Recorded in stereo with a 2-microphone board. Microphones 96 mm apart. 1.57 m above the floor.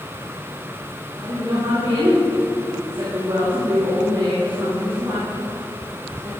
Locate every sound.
1.2 s a woman speaking: 50° right (ahead or behind), 3 m